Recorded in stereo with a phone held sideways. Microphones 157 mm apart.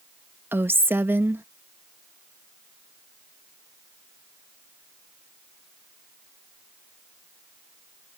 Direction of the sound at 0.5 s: 15° right (ahead or behind).